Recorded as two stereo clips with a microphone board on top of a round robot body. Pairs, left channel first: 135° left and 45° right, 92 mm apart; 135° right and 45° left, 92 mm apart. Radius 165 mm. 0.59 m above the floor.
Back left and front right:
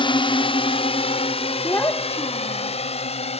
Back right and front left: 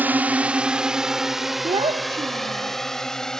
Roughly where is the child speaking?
Left.